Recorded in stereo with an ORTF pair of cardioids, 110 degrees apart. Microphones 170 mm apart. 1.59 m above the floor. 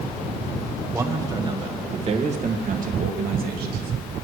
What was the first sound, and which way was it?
A man speaking, 15° right.